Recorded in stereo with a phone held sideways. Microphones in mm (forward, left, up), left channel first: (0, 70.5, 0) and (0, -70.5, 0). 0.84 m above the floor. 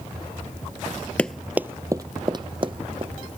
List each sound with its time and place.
1.2 s running footsteps: 10° left (ahead or behind); by 3.1 s 40° right (ahead or behind)